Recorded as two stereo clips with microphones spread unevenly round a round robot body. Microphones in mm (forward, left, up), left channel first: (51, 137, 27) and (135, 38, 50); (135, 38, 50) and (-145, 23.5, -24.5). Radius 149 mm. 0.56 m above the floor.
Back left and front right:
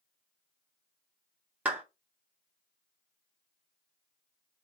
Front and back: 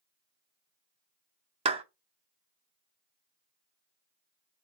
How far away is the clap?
About 0.6 m.